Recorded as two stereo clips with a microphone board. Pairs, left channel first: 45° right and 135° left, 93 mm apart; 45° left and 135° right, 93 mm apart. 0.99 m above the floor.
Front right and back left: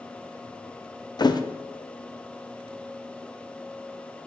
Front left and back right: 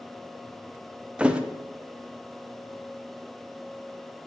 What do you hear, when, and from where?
1.2 s a thud: 60° right, 0.6 m